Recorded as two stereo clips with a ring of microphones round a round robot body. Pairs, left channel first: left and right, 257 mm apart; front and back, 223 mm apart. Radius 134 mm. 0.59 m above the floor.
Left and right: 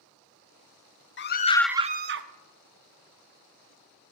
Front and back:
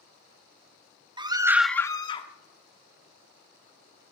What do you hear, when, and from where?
1.2 s a scream: 115° left, 0.9 m; by 2.3 s 65° right, 1.1 m